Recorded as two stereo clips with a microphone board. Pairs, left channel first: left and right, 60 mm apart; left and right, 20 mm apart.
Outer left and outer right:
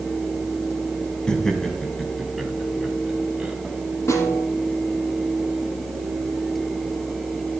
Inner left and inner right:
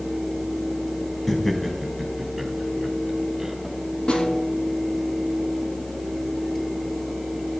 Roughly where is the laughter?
Centre.